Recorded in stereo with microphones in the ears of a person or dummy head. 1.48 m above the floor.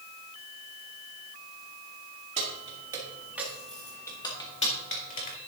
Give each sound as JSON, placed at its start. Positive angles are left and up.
{"t": 2.4, "sound": "keys jangling", "side_deg": -35, "distance_m": 2.0}